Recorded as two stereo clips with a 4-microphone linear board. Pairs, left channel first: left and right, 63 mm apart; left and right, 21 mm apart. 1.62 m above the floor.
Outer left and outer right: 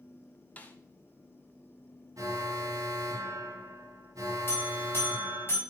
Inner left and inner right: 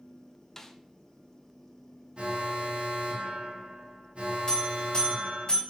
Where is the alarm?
65° right (ahead or behind), 2 m.